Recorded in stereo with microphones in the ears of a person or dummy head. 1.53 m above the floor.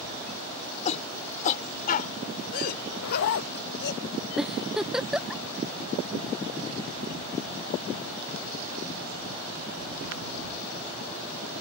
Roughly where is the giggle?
Centre.